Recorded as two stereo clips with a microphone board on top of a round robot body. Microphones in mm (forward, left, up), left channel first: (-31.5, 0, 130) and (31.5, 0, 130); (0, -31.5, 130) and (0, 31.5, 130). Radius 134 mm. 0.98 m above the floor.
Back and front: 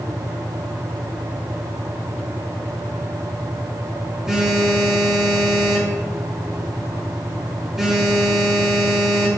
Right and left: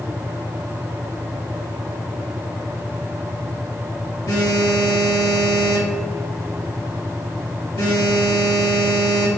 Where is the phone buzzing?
80° right, 2.5 m.